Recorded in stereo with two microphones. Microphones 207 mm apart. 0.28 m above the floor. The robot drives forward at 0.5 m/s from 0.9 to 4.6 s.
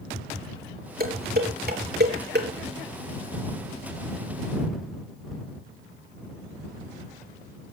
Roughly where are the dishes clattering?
Right.